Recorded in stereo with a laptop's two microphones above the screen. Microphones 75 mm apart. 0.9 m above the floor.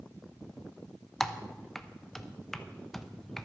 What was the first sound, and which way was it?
Typing on a keyboard, 5° left (ahead or behind).